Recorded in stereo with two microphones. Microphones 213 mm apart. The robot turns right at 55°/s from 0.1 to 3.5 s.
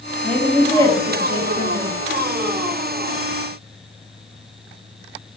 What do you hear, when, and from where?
0.2 s a woman speaking: 5° left (ahead or behind), 0.6 m; by 1.9 s 25° left (ahead or behind), 0.6 m